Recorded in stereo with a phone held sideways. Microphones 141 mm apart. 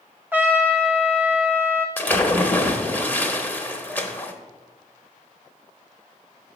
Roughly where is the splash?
Centre.